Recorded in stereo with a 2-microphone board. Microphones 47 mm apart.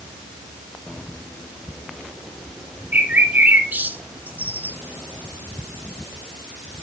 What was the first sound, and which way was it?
A bird, 40° right (ahead or behind).